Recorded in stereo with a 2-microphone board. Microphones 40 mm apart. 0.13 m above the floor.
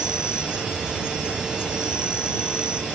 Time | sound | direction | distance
0.0 | an insect | 20° right (ahead or behind) | ?